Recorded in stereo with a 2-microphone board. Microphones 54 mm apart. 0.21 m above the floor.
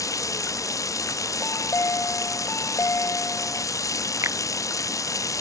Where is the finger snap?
55° right (ahead or behind).